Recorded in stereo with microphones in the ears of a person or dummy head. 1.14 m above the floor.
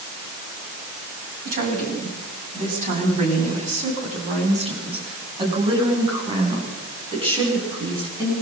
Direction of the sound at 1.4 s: 50° right (ahead or behind).